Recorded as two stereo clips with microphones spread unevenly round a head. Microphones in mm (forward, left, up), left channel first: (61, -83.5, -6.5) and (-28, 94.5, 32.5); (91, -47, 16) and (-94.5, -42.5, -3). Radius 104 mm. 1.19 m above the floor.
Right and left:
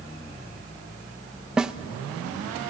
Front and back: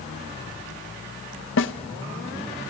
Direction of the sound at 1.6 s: 30° left.